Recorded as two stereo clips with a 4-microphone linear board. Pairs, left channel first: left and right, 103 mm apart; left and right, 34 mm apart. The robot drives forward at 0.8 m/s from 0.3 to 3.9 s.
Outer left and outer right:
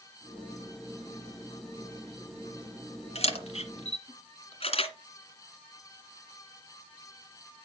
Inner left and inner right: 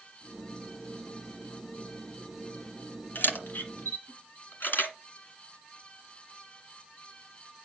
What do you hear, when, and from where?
3.1 s a camera shutter: 70° left (ahead or behind), 2 m; by 4.9 s 60° left (ahead or behind), 2 m